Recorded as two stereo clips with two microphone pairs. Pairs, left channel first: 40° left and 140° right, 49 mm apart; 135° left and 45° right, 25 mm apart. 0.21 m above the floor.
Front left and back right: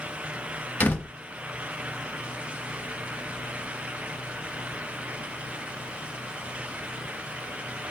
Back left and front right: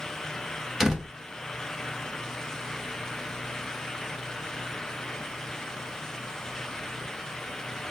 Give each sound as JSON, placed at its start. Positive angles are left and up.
{"t": 0.8, "sound": "a door slam", "azimuth_deg": 25, "distance_m": 0.9}